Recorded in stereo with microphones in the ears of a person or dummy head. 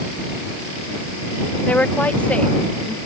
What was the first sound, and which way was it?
A woman speaking, 10° left (ahead or behind).